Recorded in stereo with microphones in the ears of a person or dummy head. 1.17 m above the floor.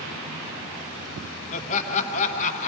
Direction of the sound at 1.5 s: 45° left (ahead or behind).